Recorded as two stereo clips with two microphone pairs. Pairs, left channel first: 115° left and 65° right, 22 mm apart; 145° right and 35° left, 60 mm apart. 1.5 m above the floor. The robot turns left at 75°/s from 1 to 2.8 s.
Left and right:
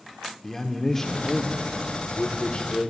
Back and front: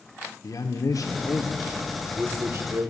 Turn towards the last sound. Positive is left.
turn(degrees=60)